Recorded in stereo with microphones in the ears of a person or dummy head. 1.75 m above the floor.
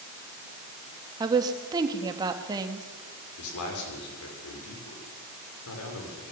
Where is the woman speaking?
20° right (ahead or behind), 2.5 m.